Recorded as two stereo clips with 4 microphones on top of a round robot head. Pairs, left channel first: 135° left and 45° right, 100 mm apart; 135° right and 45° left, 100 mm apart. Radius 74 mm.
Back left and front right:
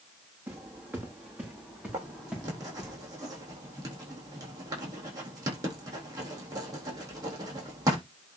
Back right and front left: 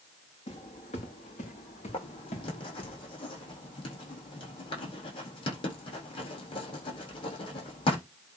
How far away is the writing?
About 7.5 m.